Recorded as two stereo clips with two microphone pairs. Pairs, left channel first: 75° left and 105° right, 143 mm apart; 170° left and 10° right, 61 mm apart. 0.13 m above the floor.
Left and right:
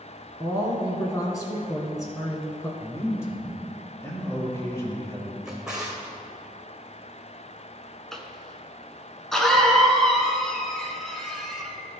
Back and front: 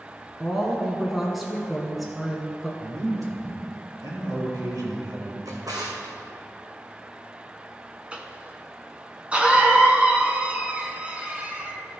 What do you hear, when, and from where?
0.4 s a woman speaking: 75° left, 1.1 m
2.8 s a man speaking: straight ahead, 3 m
5.5 s a drawer: 20° right, 2.0 m
8.1 s a cough: 5° right, 1.1 m